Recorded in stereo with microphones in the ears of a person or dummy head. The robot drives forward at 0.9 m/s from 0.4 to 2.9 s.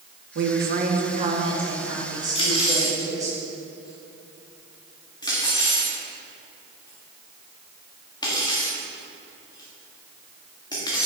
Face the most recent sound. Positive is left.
turn(degrees=30)  # may be behind; listen again after turning